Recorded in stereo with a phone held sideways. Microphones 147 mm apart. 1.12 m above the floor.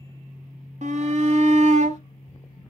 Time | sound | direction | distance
0.8 | a shout | 55° right (ahead or behind) | 1.8 m